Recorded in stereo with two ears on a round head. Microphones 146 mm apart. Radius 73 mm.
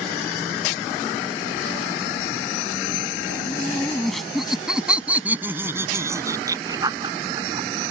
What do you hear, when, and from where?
3.5 s laughter: 10° left (ahead or behind); by 7.7 s 30° right (ahead or behind)